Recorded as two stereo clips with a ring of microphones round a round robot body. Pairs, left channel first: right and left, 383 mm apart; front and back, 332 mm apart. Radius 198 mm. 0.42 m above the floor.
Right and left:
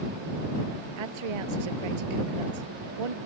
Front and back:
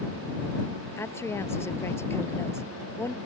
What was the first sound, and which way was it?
A woman speaking, 80° left.